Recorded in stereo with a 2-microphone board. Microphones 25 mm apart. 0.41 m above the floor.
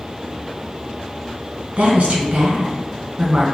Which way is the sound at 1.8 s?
55° right (ahead or behind).